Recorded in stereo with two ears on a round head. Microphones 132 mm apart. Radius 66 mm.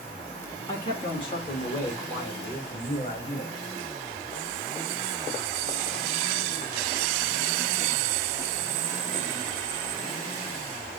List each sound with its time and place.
0.7 s a man speaking: 30° left (ahead or behind), 1.1 m; by 3.7 s 45° left (ahead or behind), 1.9 m